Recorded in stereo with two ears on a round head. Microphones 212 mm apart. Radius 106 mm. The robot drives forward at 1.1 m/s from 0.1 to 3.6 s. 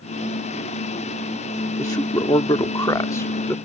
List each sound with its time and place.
1.8 s a man speaking: 15° left (ahead or behind); by 3.6 s 10° left (ahead or behind)